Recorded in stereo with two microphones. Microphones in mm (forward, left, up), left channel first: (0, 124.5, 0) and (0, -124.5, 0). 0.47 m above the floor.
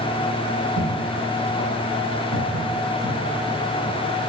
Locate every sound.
0.8 s footsteps: 80° right, 5.5 m; by 4.0 s 55° right (ahead or behind), 6.5 m